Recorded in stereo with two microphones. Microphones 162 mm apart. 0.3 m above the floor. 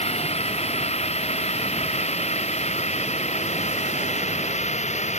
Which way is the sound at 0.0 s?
40° left (ahead or behind).